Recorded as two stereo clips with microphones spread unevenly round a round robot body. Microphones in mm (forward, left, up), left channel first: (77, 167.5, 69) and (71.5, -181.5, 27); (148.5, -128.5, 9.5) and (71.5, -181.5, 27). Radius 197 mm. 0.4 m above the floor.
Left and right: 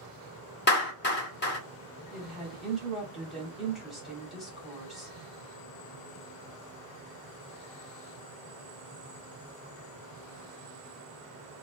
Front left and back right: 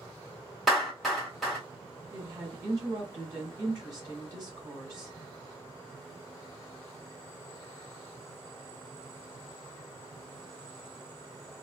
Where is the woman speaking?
170° right, 1.2 m.